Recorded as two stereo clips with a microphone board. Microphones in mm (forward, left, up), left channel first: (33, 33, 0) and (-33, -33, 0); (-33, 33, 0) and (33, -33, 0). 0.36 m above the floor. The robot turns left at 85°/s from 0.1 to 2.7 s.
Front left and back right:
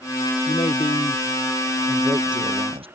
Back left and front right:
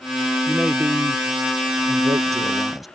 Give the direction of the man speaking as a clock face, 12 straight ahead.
10 o'clock.